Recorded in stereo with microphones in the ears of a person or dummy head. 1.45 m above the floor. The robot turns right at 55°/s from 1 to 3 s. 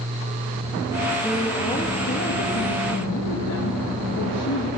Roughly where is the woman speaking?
Ahead.